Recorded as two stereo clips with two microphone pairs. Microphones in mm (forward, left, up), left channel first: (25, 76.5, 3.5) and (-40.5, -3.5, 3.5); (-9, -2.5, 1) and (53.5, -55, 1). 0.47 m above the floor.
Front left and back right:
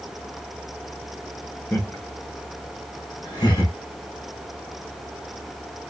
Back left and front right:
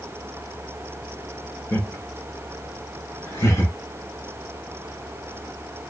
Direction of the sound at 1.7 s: 100° left.